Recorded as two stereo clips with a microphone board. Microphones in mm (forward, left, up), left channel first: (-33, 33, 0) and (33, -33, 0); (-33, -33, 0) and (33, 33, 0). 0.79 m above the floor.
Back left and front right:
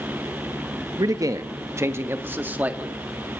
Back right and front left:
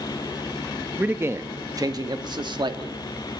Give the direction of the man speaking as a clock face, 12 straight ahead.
1 o'clock.